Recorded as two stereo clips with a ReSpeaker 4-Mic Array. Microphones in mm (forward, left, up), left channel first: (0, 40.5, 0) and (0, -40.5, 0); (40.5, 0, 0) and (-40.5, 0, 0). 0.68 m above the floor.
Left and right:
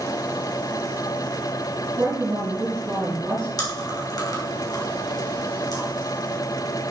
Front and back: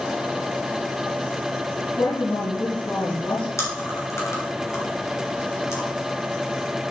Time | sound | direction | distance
2.0 | a woman speaking | 25° right | 4 m
3.6 | chewing | 55° left | 3 m